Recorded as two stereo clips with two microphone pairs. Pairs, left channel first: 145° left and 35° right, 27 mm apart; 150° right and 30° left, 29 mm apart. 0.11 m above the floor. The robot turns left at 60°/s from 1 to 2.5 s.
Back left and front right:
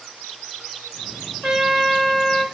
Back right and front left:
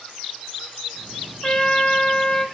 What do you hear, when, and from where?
1.4 s a trumpet: 95° right, 0.9 m; by 2.5 s 155° right, 0.9 m